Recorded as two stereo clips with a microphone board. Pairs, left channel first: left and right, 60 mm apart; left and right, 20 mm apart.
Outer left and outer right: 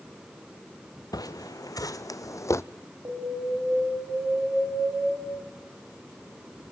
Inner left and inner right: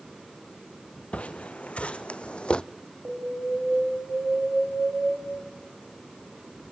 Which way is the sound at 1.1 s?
75° left (ahead or behind).